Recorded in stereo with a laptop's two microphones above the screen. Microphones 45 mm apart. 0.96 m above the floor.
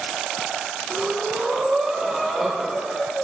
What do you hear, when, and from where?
0.9 s breathing: 5° left (ahead or behind), 2.5 m